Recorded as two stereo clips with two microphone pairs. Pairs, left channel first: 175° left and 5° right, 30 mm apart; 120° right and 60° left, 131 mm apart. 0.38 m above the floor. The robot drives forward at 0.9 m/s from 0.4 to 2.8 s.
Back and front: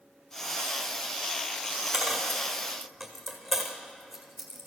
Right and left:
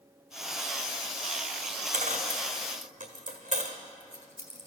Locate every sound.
1.9 s a dropped coin: 60° left, 1.9 m; by 4.7 s 85° left, 1.7 m